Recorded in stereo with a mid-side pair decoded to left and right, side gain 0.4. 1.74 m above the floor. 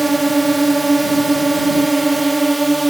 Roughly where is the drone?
Ahead.